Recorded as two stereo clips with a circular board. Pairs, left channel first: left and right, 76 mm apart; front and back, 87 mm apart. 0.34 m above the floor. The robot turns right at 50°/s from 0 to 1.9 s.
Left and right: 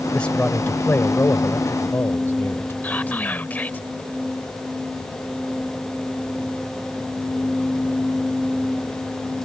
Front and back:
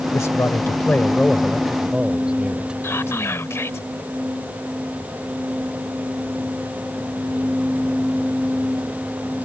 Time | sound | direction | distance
0.1 | a man speaking | 20° left | ?
2.8 | whispering | 35° left | ?